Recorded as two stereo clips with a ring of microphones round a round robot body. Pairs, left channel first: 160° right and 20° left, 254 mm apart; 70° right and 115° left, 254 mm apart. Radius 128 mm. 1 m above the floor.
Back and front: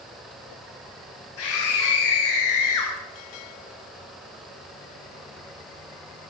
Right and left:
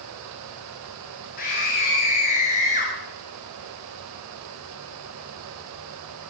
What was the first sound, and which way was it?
A scream, 125° right.